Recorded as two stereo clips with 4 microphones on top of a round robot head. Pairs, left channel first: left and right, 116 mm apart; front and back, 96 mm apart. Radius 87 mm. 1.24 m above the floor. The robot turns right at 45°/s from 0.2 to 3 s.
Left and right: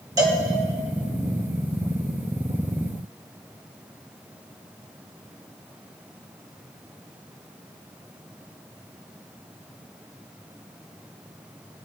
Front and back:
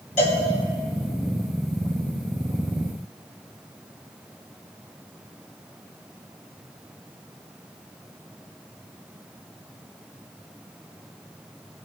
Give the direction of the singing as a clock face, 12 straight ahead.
I don't hear singing.